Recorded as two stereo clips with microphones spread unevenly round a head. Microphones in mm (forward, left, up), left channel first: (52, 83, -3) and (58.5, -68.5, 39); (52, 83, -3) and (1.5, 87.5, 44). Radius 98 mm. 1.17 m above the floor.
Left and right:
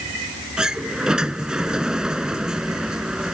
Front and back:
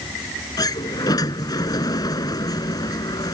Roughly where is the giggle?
No giggle in this recording.